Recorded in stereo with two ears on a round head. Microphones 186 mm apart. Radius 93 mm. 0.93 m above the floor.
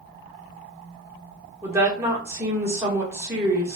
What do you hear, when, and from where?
1.6 s a woman speaking: 15° right (ahead or behind), 1.3 m